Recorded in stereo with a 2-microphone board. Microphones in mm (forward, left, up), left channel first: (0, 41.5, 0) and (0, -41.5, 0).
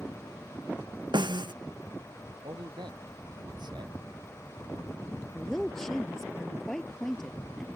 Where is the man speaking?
65° right (ahead or behind).